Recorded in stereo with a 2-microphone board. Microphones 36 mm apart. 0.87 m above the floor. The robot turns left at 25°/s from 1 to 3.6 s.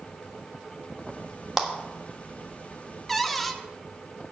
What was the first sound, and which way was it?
A clap, 10° right (ahead or behind).